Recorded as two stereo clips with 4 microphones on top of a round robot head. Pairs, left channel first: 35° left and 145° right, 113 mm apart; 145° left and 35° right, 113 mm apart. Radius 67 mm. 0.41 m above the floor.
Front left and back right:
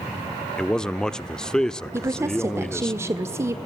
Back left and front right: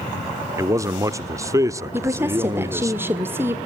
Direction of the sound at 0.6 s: 40° right.